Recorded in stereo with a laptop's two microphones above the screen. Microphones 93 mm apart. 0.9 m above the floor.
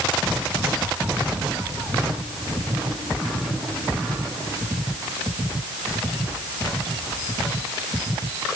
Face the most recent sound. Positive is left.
No sound to turn to.